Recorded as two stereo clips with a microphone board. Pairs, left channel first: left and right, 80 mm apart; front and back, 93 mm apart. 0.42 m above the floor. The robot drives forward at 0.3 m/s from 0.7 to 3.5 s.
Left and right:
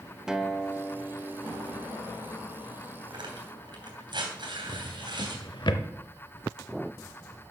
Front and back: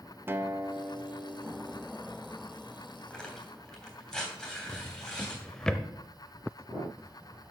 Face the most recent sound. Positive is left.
turn(degrees=80)